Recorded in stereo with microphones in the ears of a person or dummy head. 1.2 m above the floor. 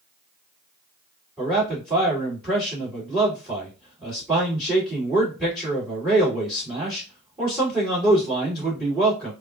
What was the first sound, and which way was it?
A man speaking, 5° right (ahead or behind).